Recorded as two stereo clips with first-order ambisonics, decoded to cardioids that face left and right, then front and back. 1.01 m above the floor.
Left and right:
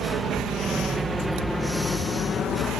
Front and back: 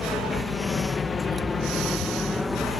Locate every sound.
0.0 s a helicopter: 55° right; by 2.8 s 75° left